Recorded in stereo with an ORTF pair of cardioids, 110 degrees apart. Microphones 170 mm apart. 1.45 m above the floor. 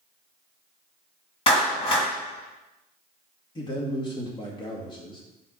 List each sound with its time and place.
1.5 s a clap: 30° left, 3.5 m
3.5 s a man speaking: 25° left, 2.0 m